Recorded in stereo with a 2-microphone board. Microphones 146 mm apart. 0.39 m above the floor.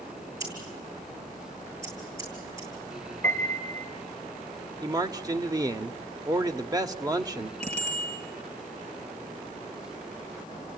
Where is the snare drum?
No snare drum in this recording.